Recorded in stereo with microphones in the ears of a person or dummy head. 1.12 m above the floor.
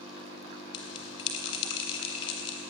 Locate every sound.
0.7 s a bell: 30° left (ahead or behind), 3 m